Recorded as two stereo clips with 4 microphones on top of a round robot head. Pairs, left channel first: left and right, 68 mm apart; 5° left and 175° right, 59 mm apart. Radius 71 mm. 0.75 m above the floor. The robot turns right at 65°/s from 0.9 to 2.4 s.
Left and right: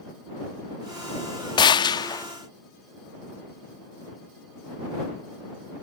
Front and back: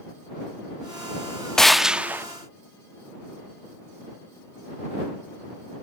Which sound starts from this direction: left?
A gunshot, at 1.6 s.